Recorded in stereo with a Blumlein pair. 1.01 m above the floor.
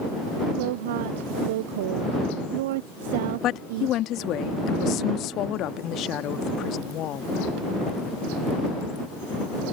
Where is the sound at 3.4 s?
35° left.